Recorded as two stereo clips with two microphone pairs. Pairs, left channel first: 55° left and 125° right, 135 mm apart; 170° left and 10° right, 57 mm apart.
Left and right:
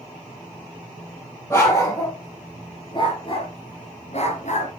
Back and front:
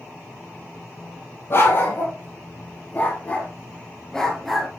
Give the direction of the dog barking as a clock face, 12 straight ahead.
8 o'clock.